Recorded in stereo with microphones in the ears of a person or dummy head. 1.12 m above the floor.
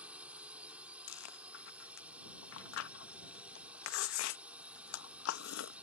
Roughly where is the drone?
Centre.